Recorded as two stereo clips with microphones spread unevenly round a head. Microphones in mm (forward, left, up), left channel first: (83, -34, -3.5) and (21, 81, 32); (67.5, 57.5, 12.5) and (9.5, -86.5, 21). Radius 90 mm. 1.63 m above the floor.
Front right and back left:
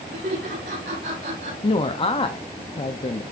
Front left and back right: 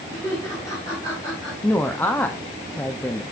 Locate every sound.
0.1 s laughter: 140° left, 5 m
1.6 s a woman speaking: 10° right, 0.8 m